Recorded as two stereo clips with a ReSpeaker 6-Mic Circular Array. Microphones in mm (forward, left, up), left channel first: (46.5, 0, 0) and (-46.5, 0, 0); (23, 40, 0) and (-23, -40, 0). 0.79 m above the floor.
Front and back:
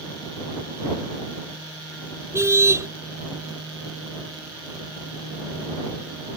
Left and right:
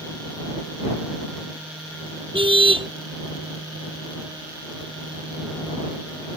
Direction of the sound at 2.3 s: 120° right.